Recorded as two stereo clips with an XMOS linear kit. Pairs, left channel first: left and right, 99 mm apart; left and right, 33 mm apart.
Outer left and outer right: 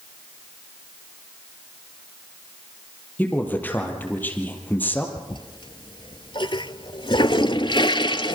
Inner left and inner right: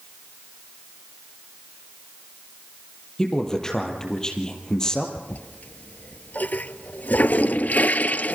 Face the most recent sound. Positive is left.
turn(degrees=55)  # may be behind; listen again after turning